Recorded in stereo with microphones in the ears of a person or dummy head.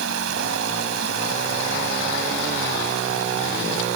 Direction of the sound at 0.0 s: 80° right.